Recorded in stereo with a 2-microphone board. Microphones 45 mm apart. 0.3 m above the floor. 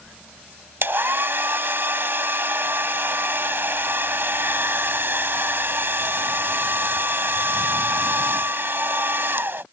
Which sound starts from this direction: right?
A hair dryer, at 0.8 s.